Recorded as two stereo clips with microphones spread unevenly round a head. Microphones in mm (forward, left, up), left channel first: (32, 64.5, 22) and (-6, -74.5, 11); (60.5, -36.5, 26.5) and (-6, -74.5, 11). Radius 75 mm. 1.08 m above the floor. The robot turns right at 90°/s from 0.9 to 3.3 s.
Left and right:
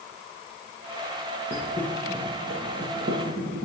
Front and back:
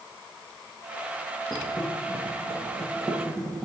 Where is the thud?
110° left, 2.5 m; by 3.7 s 85° right, 2.5 m.